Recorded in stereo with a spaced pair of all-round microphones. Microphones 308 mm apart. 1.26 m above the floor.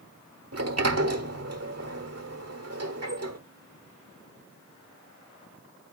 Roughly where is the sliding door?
Right.